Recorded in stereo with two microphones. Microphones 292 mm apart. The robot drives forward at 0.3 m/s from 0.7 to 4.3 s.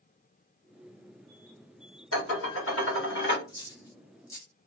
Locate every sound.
2.1 s dishes clattering: 55° left (ahead or behind), 1.1 m; by 3.4 s 45° left (ahead or behind), 1.4 m
3.5 s a dropped coin: 15° left (ahead or behind), 0.5 m; by 4.7 s 10° left (ahead or behind), 0.7 m